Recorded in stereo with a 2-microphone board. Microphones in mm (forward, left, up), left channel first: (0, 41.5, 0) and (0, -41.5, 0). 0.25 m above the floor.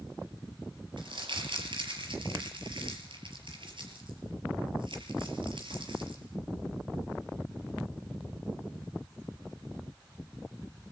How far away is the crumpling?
About 5 m.